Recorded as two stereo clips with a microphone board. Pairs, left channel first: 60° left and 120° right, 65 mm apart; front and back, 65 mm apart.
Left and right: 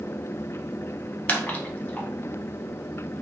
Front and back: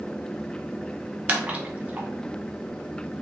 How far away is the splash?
About 0.6 m.